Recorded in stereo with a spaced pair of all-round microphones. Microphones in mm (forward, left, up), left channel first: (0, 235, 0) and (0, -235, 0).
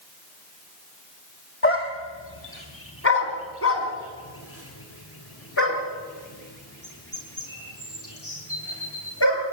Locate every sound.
1.6 s a dog barking: 25° left (ahead or behind), 2 m; by 9.4 s 30° left (ahead or behind), 8 m